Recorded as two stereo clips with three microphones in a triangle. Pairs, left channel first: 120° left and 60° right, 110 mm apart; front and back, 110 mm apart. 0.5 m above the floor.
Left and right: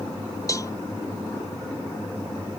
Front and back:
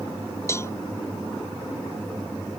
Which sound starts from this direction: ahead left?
A cowbell, at 0.5 s.